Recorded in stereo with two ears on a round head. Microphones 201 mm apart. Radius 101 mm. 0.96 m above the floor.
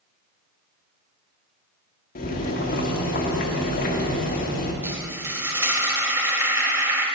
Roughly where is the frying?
Centre.